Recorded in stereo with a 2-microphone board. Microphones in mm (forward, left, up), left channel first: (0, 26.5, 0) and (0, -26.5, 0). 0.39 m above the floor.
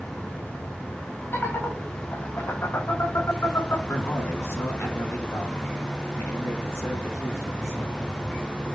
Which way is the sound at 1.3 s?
50° left (ahead or behind).